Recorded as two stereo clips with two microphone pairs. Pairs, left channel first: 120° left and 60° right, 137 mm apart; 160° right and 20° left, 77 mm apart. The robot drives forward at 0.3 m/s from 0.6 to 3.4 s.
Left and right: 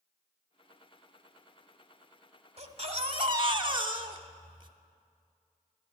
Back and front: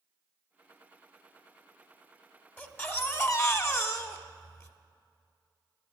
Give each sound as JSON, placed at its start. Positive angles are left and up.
{"t": 2.6, "sound": "a baby crying", "azimuth_deg": -90, "distance_m": 0.9}